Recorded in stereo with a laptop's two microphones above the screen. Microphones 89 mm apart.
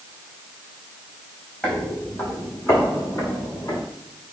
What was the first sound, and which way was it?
Footsteps, 15° left (ahead or behind).